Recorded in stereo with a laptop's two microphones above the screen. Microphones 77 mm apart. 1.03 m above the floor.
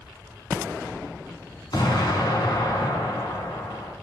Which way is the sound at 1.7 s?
70° left (ahead or behind).